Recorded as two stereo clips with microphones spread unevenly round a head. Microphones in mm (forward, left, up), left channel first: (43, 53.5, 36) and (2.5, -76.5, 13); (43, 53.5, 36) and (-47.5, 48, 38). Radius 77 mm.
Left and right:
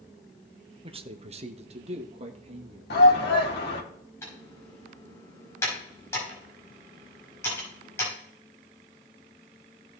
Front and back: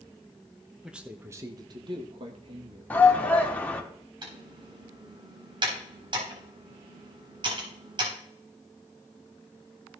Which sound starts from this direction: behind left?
Typing on a keyboard, at 4.2 s.